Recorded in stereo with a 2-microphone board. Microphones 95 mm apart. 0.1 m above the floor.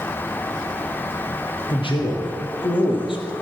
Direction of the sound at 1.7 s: 65° left (ahead or behind).